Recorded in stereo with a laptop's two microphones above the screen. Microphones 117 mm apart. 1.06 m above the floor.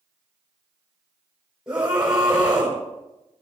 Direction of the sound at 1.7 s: 5° right (ahead or behind).